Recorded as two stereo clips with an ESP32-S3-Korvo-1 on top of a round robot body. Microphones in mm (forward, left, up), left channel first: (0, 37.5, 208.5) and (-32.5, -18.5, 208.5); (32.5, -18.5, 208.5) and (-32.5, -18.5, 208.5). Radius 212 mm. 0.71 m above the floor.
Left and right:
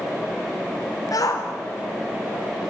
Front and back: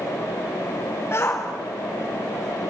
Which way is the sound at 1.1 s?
45° left.